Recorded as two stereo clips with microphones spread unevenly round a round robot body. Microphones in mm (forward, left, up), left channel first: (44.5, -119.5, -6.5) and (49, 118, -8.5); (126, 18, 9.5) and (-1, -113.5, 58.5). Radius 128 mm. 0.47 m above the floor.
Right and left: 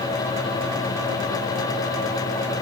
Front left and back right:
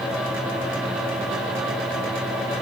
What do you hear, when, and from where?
Only background noise.